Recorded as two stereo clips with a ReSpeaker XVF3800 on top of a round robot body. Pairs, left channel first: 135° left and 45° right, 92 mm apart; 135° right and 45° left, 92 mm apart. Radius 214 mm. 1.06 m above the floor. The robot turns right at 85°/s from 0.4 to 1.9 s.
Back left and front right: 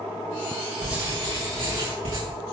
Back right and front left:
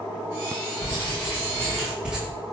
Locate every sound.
0.8 s writing: 130° right, 5.5 m; by 2.2 s 35° right, 5.5 m